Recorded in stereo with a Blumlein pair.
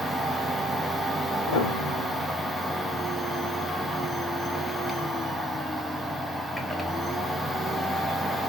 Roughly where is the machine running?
Ahead.